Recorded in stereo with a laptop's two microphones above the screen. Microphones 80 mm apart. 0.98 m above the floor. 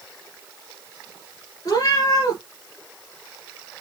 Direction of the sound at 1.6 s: 45° left (ahead or behind).